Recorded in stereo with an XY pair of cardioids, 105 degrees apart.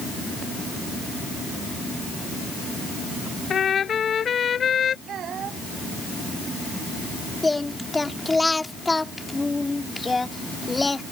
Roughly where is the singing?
Ahead.